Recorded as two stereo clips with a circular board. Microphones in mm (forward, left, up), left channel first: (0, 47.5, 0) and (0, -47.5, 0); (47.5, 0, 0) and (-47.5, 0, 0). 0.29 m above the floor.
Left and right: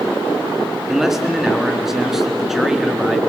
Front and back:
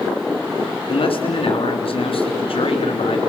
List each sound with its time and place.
0.9 s a man speaking: 5° right, 3.5 m